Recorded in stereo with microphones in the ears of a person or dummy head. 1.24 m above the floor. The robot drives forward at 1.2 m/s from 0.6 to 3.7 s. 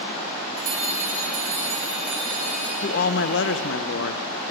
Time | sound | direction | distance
0.6 | a bell | 50° right (ahead or behind) | 4 m
2.8 | a woman speaking | 45° left (ahead or behind) | 1.3 m